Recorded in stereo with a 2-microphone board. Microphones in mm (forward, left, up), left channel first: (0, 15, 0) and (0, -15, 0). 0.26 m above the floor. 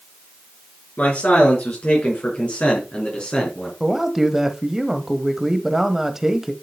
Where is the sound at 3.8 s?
10° right (ahead or behind), 1.0 m.